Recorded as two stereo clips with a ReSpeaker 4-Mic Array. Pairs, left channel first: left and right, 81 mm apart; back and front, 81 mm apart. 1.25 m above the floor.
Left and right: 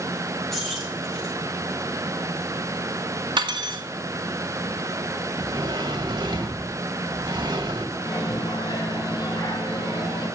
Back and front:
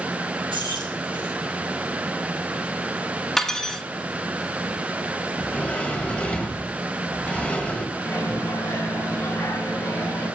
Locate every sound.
0.5 s keys jangling: 5° left, 6 m
3.4 s cutlery clinking: 95° right, 1.5 m
5.3 s a sliding door: 105° right, 2.0 m
8.0 s a microwave: 120° left, 5.5 m